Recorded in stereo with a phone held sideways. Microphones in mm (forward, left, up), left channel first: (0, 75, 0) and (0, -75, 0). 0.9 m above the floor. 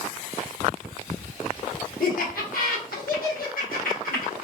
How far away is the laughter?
About 1.2 m.